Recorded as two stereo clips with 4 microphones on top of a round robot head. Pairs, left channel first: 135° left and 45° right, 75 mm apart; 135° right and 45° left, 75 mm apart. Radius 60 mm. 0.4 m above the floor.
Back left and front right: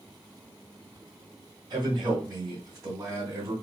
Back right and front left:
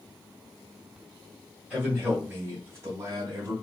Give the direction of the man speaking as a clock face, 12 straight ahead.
1 o'clock.